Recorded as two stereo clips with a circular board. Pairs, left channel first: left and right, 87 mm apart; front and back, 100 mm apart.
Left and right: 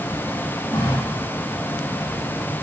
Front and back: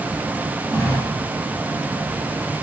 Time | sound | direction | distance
0.7 | a running tap | 50° left | 6 m